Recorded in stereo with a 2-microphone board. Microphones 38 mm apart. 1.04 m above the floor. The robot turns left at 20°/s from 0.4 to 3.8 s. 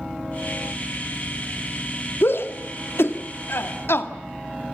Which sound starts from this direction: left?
A shout, at 2.2 s.